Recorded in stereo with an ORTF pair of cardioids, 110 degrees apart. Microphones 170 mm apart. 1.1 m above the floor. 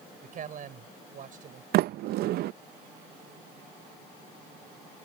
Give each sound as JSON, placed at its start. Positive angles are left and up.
{"t": 0.2, "sound": "a man speaking", "azimuth_deg": -50}
{"t": 1.7, "sound": "a sliding door", "azimuth_deg": -70}